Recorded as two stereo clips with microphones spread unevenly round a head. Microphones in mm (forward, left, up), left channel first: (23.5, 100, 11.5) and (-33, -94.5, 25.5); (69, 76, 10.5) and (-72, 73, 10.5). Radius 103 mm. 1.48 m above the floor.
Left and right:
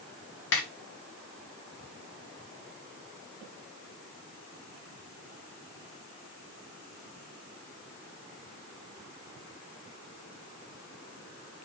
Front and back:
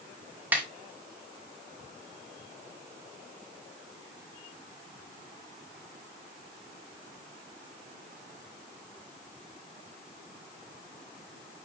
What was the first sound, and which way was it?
A snare drum, 105° left.